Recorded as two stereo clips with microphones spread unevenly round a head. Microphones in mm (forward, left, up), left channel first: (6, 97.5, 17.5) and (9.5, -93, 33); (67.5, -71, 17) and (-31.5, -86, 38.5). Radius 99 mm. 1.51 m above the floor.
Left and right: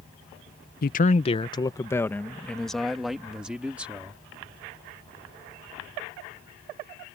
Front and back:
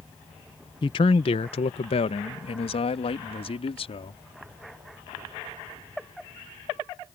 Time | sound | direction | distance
0.8 | a man speaking | 55° left | ?